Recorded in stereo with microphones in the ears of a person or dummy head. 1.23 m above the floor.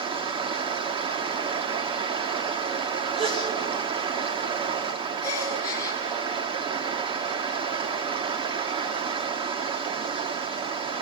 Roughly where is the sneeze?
Right.